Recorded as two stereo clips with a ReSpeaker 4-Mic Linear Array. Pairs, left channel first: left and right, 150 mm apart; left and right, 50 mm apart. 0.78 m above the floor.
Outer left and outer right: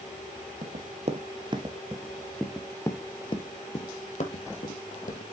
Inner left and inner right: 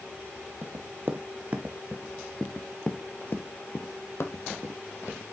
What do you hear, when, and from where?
0.6 s running footsteps: 50° right (ahead or behind), 1.3 m; by 5.2 s 65° left (ahead or behind), 1.8 m